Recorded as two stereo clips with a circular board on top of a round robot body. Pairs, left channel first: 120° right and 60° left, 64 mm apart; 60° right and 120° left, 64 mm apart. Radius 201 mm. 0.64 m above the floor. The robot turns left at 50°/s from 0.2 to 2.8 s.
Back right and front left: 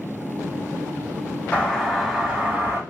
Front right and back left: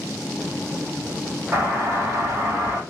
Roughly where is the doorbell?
Behind.